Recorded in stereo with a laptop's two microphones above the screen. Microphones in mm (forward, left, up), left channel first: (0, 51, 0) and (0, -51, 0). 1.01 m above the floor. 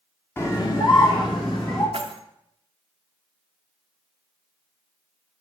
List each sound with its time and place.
0.4 s a scream: 25° left (ahead or behind), 0.5 m; by 1.8 s 60° left (ahead or behind), 1.4 m
1.9 s keys jangling: 65° right (ahead or behind), 0.6 m